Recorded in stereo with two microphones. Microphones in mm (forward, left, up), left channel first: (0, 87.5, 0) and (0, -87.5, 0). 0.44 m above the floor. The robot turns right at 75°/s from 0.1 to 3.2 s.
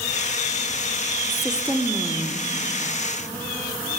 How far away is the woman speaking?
About 0.9 m.